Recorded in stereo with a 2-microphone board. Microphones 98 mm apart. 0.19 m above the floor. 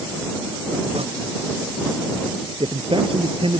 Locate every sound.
0.9 s tearing paper: 85° right
2.6 s a man speaking: 65° right (ahead or behind)